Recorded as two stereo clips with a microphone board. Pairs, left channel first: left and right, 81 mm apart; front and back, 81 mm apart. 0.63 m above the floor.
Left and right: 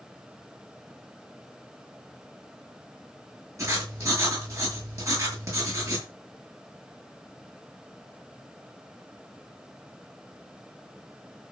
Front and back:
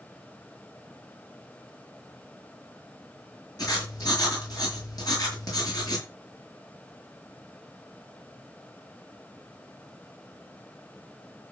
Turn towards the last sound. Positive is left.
turn(degrees=-40)